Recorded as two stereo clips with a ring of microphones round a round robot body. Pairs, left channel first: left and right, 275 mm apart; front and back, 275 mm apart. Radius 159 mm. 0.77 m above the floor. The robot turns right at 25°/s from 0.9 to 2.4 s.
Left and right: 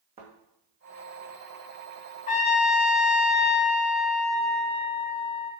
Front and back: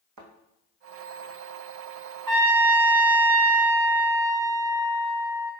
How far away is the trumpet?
About 1.9 m.